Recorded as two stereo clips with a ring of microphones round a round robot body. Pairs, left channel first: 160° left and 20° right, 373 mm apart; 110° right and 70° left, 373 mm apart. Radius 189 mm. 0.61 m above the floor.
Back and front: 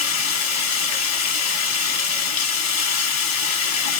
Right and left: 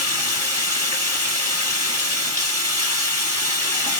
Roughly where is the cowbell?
I don't hear a cowbell.